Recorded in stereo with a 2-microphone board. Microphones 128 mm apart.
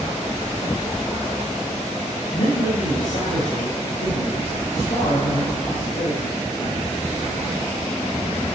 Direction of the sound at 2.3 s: 60° left (ahead or behind).